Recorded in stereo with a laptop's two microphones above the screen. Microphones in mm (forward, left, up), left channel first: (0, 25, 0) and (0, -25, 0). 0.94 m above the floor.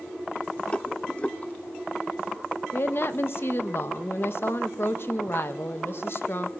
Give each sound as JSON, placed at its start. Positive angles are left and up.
{"t": 0.7, "sound": "a rattle", "side_deg": 25, "distance_m": 0.5}
{"t": 2.7, "sound": "a woman speaking", "side_deg": 55, "distance_m": 0.8}